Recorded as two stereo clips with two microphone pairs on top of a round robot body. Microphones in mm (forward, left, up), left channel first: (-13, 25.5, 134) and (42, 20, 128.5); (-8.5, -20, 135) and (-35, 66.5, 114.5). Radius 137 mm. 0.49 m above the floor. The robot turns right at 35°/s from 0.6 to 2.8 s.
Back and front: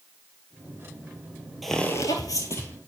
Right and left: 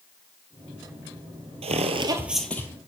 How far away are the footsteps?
About 0.8 m.